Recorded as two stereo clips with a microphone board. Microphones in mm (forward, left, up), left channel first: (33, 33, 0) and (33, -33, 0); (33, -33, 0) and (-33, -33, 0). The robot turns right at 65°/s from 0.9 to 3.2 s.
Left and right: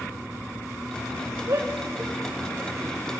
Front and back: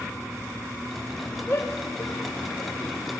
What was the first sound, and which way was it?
A shout, 60° right.